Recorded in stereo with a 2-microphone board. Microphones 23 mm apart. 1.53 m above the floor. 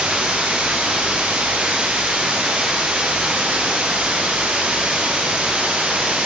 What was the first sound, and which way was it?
Running water, 85° right.